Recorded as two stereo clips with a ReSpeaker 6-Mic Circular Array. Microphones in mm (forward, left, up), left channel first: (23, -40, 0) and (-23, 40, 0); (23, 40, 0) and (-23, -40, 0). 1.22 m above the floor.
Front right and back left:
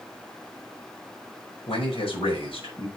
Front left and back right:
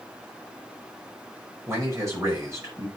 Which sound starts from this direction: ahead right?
A man speaking, at 1.7 s.